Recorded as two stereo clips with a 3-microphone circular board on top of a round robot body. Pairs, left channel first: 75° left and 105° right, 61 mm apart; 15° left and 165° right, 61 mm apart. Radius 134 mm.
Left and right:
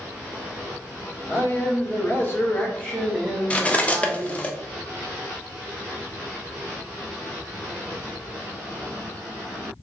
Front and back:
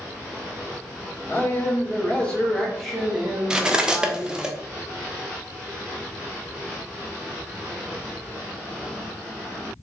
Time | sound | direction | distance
1.3 | a man speaking | 60° left | 1.7 m
3.5 | cutlery clinking | 125° left | 0.7 m